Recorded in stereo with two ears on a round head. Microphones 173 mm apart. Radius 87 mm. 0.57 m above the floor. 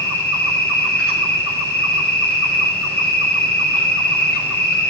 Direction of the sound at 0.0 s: 15° right (ahead or behind).